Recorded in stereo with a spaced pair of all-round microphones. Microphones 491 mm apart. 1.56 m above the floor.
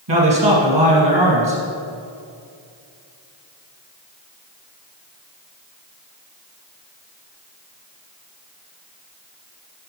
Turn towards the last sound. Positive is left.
turn(degrees=-60)  # may be behind; listen again after turning